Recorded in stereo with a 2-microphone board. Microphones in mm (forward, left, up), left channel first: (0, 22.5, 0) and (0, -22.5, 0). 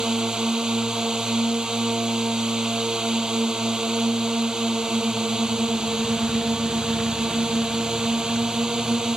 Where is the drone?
20° right (ahead or behind).